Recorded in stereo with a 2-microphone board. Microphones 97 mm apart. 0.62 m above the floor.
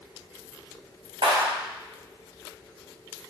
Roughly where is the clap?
Right.